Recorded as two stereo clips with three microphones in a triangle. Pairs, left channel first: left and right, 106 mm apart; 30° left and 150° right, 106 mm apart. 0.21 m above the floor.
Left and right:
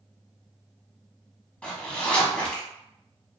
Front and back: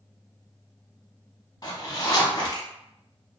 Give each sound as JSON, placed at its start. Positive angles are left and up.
{"t": 1.6, "sound": "a zipper", "azimuth_deg": 15, "distance_m": 0.6}